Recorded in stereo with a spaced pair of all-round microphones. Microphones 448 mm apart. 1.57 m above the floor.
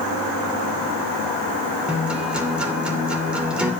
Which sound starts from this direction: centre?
A guitar, at 1.9 s.